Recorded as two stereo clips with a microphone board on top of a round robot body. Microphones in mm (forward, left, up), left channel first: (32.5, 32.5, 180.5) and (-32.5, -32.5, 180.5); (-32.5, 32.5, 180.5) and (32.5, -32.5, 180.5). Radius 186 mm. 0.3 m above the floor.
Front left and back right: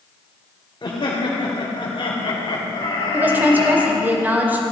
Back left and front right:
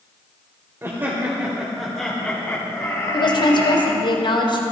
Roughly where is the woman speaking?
Behind left.